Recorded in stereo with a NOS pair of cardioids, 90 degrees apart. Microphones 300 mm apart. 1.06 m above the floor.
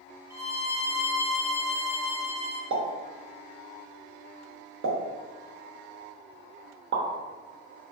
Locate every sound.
0.3 s a violin: 10° right, 1.1 m
2.7 s a pop: 45° right, 0.8 m